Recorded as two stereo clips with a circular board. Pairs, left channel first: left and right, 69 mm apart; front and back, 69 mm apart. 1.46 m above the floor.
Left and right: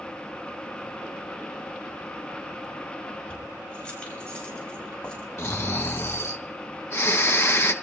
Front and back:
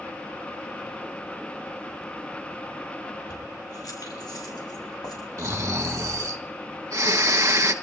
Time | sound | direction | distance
3.3 | keys jangling | 20° left | 5.5 m
5.4 | snoring | 135° left | 1.6 m